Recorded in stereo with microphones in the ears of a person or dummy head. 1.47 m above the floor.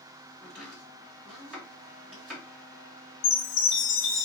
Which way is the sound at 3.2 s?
65° left (ahead or behind).